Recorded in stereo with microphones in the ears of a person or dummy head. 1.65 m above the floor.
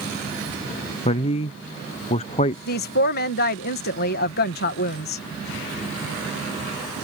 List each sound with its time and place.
1.1 s a man speaking: 30° left (ahead or behind)
2.7 s a woman speaking: 50° left (ahead or behind)